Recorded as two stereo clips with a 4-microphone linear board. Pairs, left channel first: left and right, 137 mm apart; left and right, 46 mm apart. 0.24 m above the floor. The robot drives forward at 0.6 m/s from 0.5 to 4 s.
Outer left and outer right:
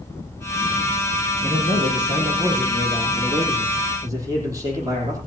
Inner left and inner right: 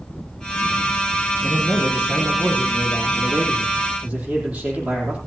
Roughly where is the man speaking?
Right.